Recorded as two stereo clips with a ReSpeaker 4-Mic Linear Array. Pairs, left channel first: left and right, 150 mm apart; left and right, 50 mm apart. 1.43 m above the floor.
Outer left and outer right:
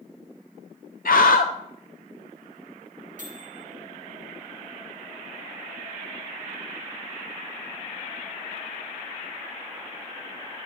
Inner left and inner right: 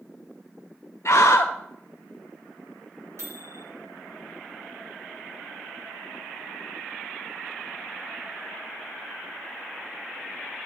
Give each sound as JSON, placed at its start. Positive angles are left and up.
{"t": 1.1, "sound": "a scream", "side_deg": 75, "distance_m": 0.5}
{"t": 3.2, "sound": "a microwave", "side_deg": -65, "distance_m": 1.7}